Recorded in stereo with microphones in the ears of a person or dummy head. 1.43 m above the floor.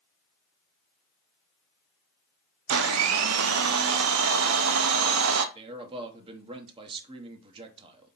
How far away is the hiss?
No hiss in this recording.